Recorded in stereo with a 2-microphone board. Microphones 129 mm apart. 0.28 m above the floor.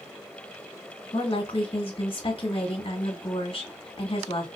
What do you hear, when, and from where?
1.1 s a woman speaking: 45° left (ahead or behind), 2 m